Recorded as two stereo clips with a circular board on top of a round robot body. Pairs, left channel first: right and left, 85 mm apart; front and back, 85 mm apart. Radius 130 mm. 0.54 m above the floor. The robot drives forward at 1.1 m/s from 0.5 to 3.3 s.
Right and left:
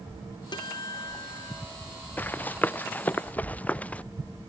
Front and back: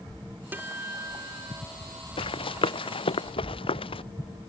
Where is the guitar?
110° right; by 1.6 s 135° right.